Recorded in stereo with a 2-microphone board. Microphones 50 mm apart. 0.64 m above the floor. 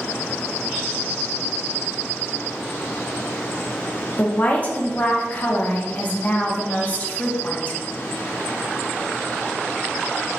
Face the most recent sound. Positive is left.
turn(degrees=35)  # may be behind; listen again after turning